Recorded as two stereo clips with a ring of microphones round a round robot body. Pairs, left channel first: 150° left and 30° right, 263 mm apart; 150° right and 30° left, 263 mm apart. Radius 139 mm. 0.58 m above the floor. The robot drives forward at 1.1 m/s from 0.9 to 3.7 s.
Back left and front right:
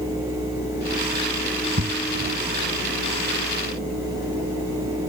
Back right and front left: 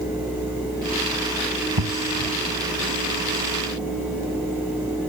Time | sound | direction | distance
1.8 | an explosion | 25° left | ?